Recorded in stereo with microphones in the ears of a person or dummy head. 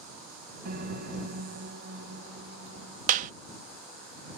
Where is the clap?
50° right (ahead or behind).